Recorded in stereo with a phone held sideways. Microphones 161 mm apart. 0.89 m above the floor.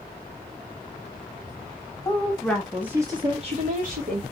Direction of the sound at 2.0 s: 20° left (ahead or behind).